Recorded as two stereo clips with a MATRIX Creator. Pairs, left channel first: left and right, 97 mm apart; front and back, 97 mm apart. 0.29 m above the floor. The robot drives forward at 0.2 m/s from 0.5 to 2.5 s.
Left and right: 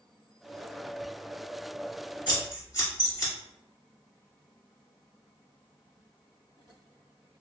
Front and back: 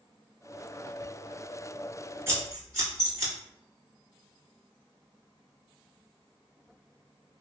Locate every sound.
2.3 s scissors: 120° left, 1.2 m; by 3.3 s 125° left, 1.2 m